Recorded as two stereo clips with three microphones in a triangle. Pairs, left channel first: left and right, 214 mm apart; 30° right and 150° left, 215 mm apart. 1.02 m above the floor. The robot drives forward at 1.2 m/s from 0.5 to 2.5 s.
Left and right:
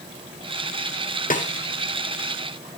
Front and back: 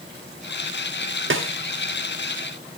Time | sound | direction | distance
1.3 | a snare drum | 135° left | 1.0 m